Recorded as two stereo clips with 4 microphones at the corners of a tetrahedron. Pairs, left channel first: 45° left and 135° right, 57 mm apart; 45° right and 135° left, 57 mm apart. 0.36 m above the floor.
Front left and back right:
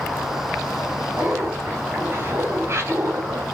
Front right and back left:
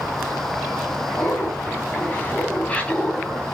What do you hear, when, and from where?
1.2 s laughter: 85° right, 4 m; by 3.5 s 120° right, 2.5 m